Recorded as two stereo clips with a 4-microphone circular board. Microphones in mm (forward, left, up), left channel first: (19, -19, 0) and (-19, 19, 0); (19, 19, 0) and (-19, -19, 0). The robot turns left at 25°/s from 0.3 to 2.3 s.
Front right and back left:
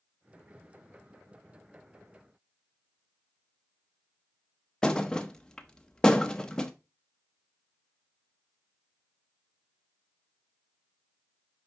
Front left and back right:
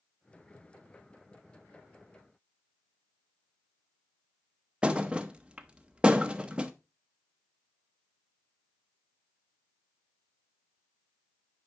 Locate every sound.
4.8 s a thud: 100° right, 0.7 m